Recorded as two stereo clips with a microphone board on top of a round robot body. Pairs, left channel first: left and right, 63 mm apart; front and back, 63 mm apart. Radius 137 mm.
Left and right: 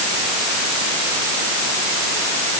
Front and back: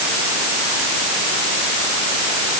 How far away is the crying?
I don't hear crying.